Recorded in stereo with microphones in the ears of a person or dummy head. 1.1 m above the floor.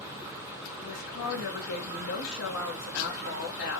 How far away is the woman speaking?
About 2 m.